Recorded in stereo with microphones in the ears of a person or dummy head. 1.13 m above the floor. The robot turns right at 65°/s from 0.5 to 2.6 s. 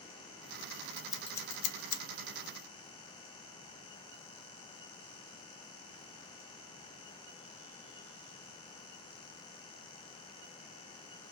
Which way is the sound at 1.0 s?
15° right (ahead or behind).